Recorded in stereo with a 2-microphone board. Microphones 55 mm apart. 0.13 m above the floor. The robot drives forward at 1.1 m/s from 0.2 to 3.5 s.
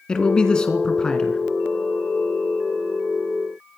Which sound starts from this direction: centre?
A man speaking, at 0.1 s.